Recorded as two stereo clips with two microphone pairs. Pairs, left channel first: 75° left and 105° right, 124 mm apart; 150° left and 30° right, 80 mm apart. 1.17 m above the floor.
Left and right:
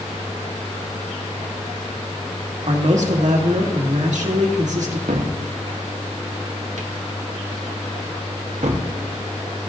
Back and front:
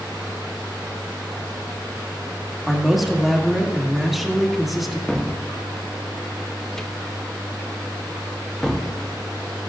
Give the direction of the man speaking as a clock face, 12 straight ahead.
4 o'clock.